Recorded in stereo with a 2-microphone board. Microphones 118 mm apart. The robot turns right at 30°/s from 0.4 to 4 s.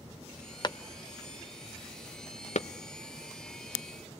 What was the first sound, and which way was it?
A clap, 40° left (ahead or behind).